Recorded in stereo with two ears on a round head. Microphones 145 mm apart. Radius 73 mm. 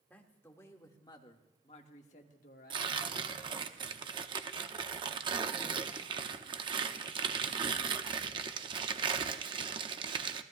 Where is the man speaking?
10° left (ahead or behind), 1.7 m; by 3.5 s 65° left (ahead or behind), 1.6 m.